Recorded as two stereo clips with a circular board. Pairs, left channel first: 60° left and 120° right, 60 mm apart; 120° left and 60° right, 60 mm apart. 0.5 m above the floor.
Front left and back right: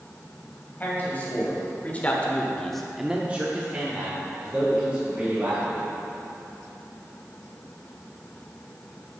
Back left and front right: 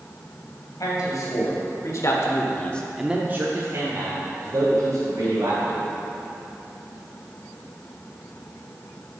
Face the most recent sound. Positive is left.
turn(degrees=-65)